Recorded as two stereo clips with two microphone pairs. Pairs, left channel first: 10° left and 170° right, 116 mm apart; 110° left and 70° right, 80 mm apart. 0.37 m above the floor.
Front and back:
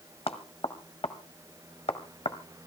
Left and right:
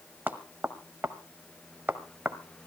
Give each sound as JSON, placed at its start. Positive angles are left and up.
{"t": 0.3, "sound": "knocking", "azimuth_deg": -5, "distance_m": 1.4}